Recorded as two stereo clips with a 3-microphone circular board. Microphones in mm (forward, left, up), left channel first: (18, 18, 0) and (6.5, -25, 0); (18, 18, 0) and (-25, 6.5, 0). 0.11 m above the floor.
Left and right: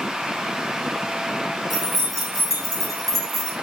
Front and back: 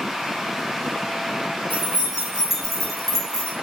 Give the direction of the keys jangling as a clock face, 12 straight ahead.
7 o'clock.